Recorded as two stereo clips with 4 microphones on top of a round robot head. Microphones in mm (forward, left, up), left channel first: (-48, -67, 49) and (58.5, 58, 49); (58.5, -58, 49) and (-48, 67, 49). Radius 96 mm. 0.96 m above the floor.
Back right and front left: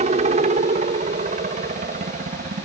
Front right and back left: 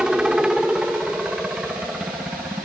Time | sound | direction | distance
0.0 | a helicopter | 45° left | ?